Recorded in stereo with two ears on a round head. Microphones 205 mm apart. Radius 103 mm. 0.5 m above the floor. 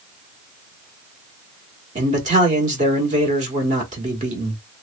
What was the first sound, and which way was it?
A man speaking, 35° right (ahead or behind).